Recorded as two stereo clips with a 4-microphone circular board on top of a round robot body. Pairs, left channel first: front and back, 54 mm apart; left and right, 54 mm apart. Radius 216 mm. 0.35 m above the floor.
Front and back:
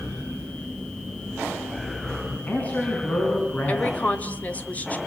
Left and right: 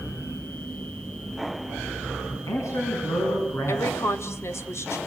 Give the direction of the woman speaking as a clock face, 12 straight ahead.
10 o'clock.